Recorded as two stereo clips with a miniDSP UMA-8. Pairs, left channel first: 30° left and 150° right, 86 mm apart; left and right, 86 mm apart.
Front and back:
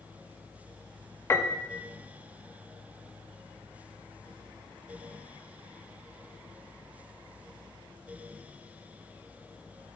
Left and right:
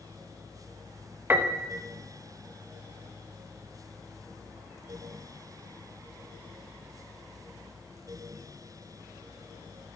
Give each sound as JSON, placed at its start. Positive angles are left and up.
{"t": 1.3, "sound": "a piano", "azimuth_deg": -25, "distance_m": 1.2}